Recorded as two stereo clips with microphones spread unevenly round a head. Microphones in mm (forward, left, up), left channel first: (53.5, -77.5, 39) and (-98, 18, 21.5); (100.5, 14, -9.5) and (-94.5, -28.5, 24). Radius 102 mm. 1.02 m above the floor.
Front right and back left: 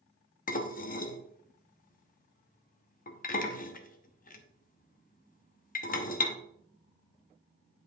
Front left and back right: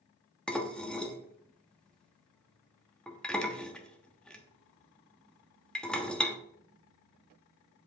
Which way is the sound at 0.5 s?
75° right.